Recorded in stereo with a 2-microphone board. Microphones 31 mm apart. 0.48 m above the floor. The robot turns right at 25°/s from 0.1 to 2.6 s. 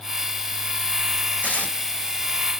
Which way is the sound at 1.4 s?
65° left (ahead or behind).